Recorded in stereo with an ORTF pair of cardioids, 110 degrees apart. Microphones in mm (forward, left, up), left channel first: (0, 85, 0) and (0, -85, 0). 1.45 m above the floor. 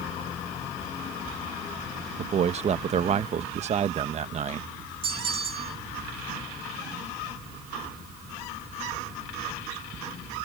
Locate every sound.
2.2 s a man speaking: 40° right
5.0 s a bell: 30° right